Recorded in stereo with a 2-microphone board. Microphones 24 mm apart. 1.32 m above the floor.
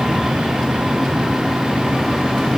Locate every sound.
Only background noise.